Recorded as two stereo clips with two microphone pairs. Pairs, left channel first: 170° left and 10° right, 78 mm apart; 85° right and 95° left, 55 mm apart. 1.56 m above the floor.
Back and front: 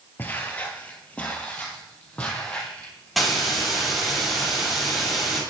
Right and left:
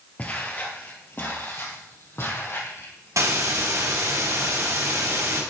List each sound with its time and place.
0.2 s footsteps: 135° right, 2 m; by 3.7 s 110° right, 5 m
3.2 s a hiss: 75° left, 4.5 m